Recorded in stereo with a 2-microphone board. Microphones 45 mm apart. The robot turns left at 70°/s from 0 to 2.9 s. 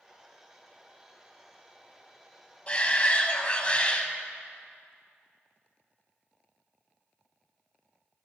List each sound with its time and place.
2.7 s a shout: 30° left (ahead or behind), 1.2 m